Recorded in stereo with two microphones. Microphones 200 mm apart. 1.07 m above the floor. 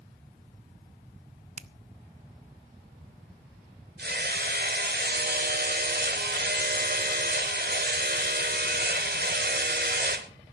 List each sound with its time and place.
1.6 s a finger snap: 35° right (ahead or behind), 0.6 m
4.0 s hammering: 55° right (ahead or behind), 1.2 m